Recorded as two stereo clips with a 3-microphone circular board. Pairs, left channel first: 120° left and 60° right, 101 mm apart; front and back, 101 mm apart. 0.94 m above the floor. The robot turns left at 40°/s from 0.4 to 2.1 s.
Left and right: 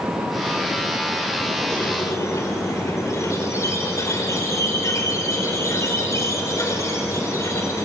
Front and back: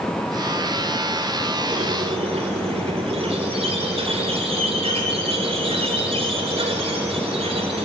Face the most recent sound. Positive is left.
turn(degrees=180)